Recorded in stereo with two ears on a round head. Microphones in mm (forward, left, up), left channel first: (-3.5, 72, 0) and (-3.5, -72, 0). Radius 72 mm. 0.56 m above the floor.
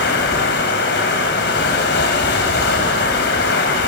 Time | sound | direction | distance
0.0 | running water | 75° left (ahead or behind) | 3.5 m